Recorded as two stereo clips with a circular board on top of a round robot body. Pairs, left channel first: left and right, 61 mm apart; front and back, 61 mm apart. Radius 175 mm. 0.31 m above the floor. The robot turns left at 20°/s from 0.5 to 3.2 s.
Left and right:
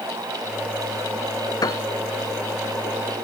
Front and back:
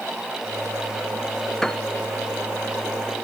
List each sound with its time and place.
1.6 s a piano: 85° left; by 1.9 s 80° left